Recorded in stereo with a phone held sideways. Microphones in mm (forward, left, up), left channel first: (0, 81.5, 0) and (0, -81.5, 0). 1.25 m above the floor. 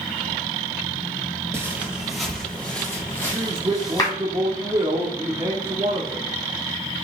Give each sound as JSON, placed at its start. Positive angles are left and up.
{"t": 1.5, "sound": "footsteps", "side_deg": -15, "distance_m": 1.9}
{"t": 3.3, "sound": "a man speaking", "side_deg": -35, "distance_m": 1.3}